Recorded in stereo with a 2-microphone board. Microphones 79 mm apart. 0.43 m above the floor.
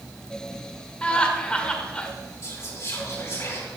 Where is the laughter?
15° left (ahead or behind), 1.2 m.